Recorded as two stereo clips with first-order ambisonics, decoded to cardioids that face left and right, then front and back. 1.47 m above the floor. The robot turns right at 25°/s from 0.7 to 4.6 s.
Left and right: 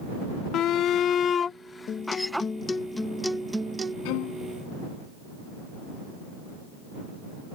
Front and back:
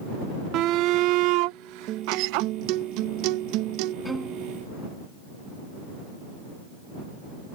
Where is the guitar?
145° left; by 4.0 s 165° right.